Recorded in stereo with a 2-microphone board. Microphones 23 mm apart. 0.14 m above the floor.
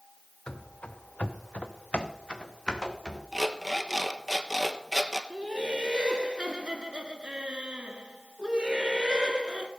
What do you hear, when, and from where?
0.5 s running footsteps: 40° left (ahead or behind), 1.5 m; by 3.2 s 25° left (ahead or behind), 2.5 m
3.3 s an alarm clock: 15° right (ahead or behind), 1.1 m
5.3 s laughter: 40° right (ahead or behind), 1.7 m